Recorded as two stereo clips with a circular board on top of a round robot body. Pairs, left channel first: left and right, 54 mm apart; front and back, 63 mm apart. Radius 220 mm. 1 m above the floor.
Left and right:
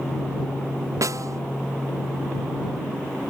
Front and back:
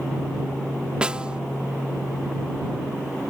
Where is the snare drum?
105° right.